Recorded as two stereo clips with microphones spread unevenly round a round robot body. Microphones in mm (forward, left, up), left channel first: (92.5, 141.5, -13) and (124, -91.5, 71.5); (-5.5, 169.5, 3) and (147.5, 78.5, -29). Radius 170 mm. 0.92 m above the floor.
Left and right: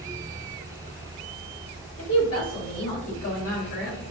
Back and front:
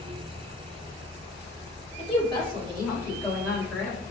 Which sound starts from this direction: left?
A woman speaking, at 2.0 s.